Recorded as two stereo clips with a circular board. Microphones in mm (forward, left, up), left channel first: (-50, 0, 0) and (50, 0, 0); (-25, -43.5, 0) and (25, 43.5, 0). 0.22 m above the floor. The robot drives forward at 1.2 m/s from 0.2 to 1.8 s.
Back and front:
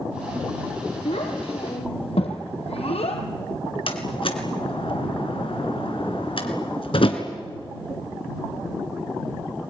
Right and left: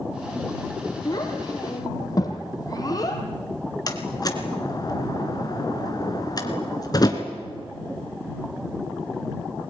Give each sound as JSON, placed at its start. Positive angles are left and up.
{"t": 1.1, "sound": "a child speaking", "azimuth_deg": -170, "distance_m": 3.5}
{"t": 3.9, "sound": "a door slam", "azimuth_deg": -165, "distance_m": 2.5}